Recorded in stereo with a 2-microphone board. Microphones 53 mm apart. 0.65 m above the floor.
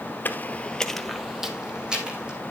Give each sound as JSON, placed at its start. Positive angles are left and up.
{"t": 0.2, "sound": "footsteps", "side_deg": 40, "distance_m": 0.8}